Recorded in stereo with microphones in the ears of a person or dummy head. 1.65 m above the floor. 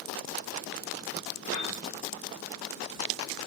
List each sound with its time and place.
1.5 s a piano: 65° left (ahead or behind), 2 m